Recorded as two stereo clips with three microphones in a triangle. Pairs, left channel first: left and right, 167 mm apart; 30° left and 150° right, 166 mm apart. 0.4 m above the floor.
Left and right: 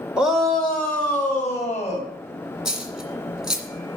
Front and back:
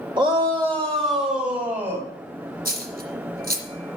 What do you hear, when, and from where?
0.2 s a shout: 170° right, 1.3 m; by 2.1 s 160° left, 2.5 m
2.6 s a dropped coin: 175° right, 1.8 m